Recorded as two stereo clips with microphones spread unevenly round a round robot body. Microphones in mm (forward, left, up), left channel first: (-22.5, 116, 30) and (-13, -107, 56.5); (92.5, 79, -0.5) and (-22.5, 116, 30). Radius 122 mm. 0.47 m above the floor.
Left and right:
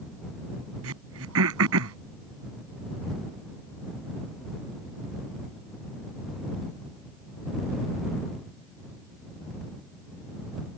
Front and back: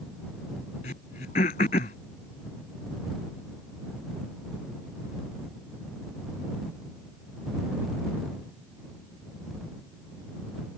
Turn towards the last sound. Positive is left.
turn(degrees=-60)